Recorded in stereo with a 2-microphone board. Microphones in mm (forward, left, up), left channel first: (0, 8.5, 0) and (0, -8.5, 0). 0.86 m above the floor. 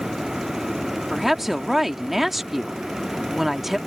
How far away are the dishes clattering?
I don't hear dishes clattering.